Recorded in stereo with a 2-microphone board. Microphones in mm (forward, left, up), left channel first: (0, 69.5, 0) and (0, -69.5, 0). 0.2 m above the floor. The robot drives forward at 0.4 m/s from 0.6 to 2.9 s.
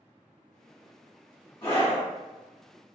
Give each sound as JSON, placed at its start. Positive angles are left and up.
{"t": 1.6, "sound": "a scream", "side_deg": 30, "distance_m": 1.5}